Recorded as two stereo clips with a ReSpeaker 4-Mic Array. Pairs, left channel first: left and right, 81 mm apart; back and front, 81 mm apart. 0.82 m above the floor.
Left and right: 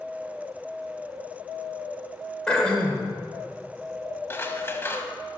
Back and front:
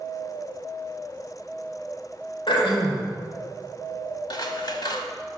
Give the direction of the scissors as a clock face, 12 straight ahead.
7 o'clock.